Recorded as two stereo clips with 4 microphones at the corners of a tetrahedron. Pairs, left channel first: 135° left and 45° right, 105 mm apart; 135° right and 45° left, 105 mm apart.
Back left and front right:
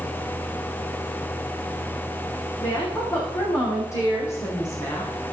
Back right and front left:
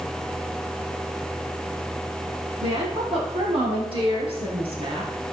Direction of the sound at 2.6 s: 70° left.